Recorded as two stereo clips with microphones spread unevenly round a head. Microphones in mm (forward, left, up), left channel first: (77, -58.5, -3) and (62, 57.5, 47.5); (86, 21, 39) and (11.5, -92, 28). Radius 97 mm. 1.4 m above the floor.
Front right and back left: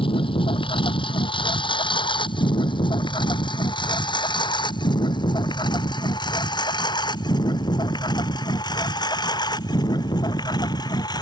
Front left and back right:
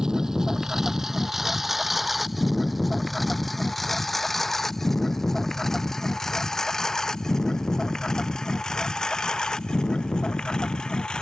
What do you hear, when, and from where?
0.0 s a lawn mower: 35° right; by 11.2 s 25° right